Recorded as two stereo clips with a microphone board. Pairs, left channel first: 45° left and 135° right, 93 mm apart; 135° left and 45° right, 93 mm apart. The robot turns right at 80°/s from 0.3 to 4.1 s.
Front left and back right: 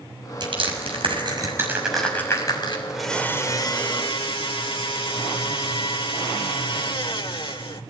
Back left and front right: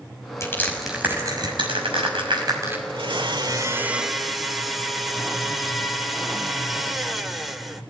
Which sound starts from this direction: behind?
Crushing, at 0.4 s.